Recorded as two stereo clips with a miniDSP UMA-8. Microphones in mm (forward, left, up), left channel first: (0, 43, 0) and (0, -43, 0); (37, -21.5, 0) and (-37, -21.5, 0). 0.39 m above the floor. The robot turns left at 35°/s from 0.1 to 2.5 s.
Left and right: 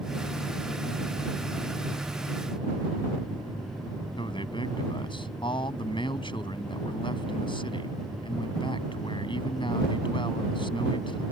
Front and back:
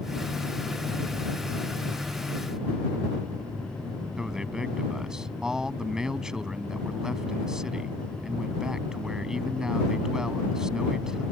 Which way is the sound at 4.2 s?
100° left.